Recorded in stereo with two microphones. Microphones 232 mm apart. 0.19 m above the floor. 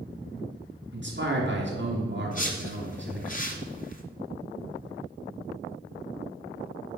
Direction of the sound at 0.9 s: 50° right (ahead or behind).